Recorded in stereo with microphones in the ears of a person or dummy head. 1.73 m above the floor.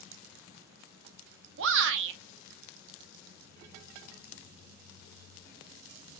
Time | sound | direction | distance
1.6 | a shout | 70° right (ahead or behind) | 0.7 m